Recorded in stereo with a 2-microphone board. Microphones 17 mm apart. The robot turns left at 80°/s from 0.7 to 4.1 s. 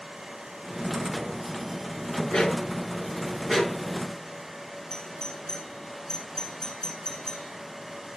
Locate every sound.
2.3 s a dog barking: 75° left (ahead or behind), 6 m; by 3.9 s 40° right (ahead or behind), 6 m
4.9 s a doorbell: 30° left (ahead or behind), 3 m